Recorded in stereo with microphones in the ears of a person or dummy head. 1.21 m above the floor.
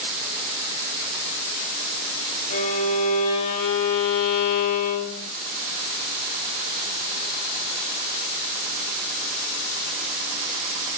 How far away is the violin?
About 5 m.